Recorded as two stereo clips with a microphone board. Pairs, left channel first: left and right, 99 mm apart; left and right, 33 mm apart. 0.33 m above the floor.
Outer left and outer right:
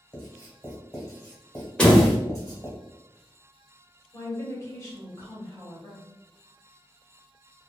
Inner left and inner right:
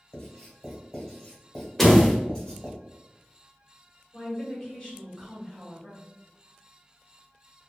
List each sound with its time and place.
0.1 s writing: 25° left (ahead or behind), 1.3 m
1.8 s a door slam: 10° left (ahead or behind), 0.8 m
4.1 s a woman speaking: 30° left (ahead or behind), 1.4 m